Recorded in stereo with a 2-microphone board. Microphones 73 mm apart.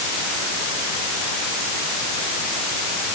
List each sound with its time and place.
Only background noise.